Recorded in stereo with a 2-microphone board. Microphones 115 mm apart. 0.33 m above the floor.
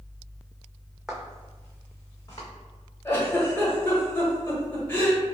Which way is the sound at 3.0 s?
20° left (ahead or behind).